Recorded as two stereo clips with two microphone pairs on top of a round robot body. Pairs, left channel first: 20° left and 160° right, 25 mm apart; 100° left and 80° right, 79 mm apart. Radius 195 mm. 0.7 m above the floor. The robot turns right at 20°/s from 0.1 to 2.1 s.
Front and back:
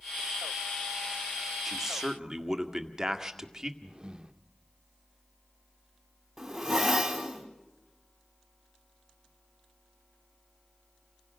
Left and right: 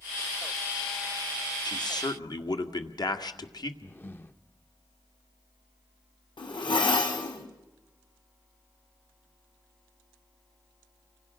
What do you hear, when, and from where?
1.6 s a man speaking: 115° left, 1.9 m; by 3.7 s 125° left, 1.9 m
3.8 s breathing: 140° left, 1.3 m
6.4 s a zipper: 120° left, 3 m